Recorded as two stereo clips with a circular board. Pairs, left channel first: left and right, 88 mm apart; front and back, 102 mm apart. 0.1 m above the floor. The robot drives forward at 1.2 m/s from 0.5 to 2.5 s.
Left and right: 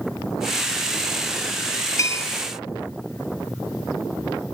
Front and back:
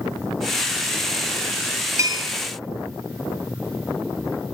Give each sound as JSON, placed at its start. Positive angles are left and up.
{"t": 2.0, "sound": "a bell", "azimuth_deg": 130, "distance_m": 0.6}